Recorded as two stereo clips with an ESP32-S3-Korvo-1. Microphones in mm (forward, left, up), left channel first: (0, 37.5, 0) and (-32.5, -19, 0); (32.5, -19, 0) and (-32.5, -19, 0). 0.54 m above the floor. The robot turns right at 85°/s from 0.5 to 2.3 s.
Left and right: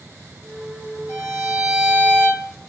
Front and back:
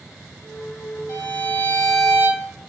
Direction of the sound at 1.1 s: 15° left.